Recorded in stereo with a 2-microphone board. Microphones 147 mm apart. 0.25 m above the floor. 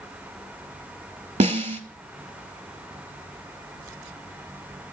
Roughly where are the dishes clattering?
No dishes clattering in this recording.